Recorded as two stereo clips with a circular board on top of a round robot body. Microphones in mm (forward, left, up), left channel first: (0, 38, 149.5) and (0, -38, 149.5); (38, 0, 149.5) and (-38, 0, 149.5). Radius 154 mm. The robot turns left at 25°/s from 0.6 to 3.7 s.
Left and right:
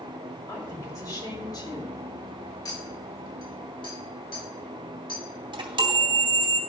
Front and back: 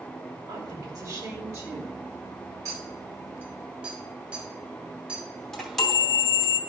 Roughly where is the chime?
Right.